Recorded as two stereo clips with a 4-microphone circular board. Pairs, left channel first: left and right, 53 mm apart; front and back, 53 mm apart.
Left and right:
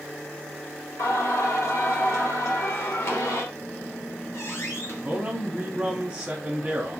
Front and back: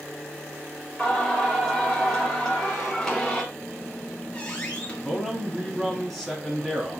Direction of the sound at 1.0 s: 80° left.